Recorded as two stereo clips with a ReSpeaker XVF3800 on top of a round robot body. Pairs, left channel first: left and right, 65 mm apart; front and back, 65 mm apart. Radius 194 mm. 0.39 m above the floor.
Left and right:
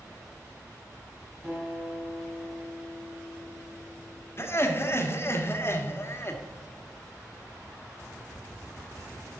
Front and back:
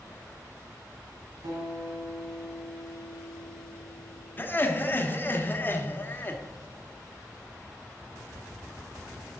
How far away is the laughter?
About 1.9 m.